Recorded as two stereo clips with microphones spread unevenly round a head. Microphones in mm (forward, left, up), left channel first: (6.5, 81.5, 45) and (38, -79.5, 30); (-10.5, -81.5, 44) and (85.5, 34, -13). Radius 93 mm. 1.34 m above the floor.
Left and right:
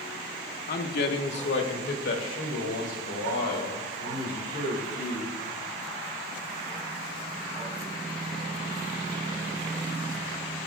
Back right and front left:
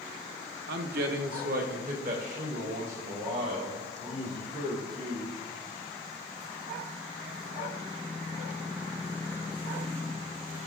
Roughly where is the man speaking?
Ahead left.